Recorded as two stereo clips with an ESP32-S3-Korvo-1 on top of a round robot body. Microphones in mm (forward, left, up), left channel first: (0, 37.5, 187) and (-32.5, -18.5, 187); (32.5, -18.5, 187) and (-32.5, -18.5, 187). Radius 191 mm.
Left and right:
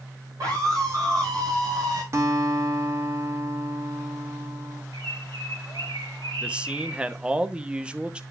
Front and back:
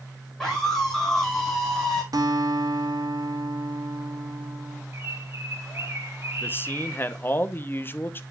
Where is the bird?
125° right, 2.5 m.